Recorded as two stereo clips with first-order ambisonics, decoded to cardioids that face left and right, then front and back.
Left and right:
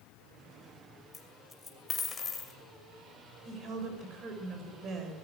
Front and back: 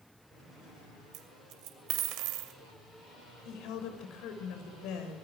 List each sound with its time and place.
1.1 s a dropped coin: 160° left, 2.5 m
3.5 s a woman speaking: 30° right, 6 m